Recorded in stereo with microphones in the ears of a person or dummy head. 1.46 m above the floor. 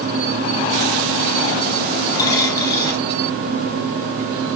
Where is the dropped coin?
20° left (ahead or behind), 1.4 m.